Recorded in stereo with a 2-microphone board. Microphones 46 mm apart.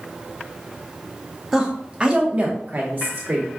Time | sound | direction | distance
1.5 | a woman speaking | 10° right (ahead or behind) | 0.9 m